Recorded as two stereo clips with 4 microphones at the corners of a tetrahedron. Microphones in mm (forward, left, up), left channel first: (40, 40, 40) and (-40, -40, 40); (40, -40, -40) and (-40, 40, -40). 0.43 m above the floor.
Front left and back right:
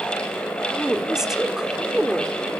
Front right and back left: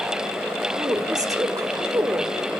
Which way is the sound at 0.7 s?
145° left.